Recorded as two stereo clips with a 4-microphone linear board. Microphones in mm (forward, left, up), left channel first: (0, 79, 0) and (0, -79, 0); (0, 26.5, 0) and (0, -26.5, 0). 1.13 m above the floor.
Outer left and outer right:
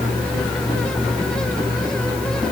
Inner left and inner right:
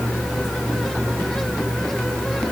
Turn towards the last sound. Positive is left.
No sound to turn to.